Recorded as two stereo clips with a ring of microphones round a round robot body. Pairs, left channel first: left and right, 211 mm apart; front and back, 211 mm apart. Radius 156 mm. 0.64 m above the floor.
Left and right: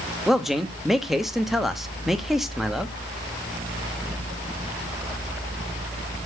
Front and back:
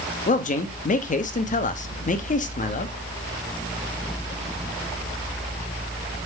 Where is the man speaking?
Straight ahead, 0.9 m.